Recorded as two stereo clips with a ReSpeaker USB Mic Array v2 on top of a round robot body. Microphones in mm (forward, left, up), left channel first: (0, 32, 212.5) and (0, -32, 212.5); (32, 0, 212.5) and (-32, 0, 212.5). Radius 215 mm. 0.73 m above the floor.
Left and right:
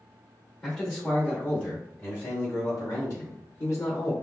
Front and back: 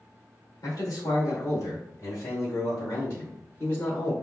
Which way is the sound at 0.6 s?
15° left.